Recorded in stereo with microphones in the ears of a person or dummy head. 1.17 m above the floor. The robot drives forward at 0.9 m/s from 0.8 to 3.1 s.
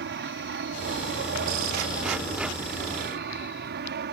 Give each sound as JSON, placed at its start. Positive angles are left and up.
{"t": 0.0, "sound": "an aircraft", "side_deg": -50}